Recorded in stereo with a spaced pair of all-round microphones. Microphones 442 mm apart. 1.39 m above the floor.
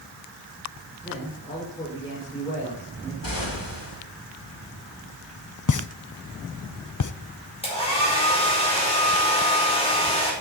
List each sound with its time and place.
1.0 s a man speaking: 10° left (ahead or behind), 6 m
3.2 s an explosion: 85° left, 3 m
5.7 s a pop: 45° left (ahead or behind), 0.5 m
7.6 s a hair dryer: 15° left (ahead or behind), 5 m